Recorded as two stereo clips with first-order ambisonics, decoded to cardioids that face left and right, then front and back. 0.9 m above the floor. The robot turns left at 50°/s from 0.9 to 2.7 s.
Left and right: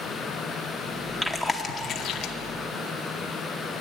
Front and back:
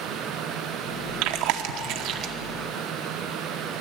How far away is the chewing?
About 0.7 m.